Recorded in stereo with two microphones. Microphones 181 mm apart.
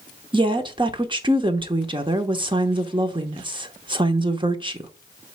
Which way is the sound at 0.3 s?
25° right (ahead or behind).